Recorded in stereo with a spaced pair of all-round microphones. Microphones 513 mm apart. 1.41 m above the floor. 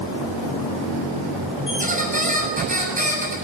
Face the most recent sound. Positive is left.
turn(degrees=-15)  # may be behind; listen again after turning